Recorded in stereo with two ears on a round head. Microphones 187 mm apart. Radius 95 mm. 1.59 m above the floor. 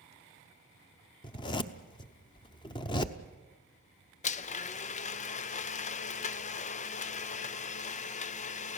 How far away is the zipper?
About 0.7 m.